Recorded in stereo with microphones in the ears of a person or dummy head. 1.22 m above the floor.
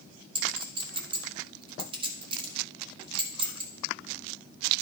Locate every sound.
0.3 s a clink: 35° right (ahead or behind), 1.7 m